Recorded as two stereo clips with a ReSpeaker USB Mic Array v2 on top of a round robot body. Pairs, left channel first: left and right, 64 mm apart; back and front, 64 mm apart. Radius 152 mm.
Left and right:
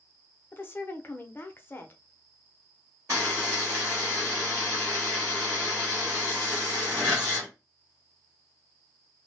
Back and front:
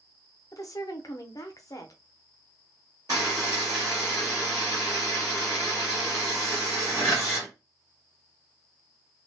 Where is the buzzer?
35° right, 0.9 m.